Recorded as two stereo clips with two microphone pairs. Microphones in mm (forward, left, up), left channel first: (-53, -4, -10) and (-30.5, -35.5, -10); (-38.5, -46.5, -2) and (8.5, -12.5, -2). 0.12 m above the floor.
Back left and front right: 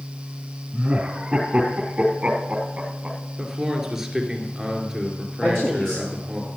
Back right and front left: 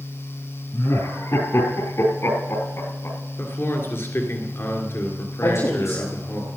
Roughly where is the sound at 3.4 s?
Behind right.